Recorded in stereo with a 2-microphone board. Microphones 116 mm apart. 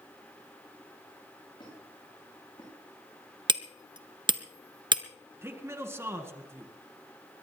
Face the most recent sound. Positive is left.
turn(degrees=-20)  # may be behind; listen again after turning